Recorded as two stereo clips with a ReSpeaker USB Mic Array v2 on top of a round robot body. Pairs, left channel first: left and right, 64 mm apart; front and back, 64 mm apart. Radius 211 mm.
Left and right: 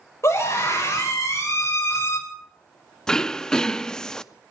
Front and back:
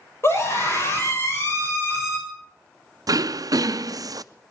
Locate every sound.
0.2 s a scream: 50° left, 7 m
3.1 s throat clearing: 170° left, 0.6 m